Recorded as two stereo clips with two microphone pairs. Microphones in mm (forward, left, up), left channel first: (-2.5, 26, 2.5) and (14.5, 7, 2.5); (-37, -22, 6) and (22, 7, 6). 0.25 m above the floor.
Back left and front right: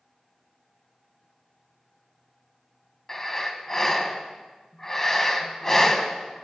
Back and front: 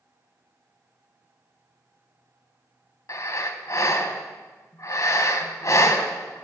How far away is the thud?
No thud in this recording.